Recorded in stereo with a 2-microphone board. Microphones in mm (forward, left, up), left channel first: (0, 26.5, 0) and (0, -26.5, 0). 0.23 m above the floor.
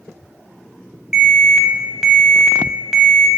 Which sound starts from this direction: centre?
An alarm, at 1.1 s.